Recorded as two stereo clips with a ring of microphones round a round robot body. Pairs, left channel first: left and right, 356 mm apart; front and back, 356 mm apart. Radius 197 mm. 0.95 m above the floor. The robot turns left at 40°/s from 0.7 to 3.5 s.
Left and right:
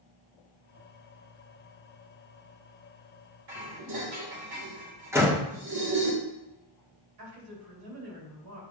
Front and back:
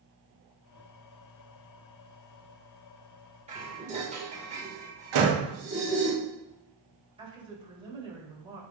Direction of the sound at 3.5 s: 110° right.